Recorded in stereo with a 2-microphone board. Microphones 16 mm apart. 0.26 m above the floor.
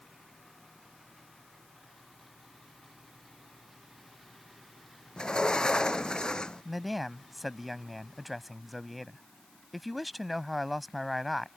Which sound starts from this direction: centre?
A man speaking, at 6.7 s.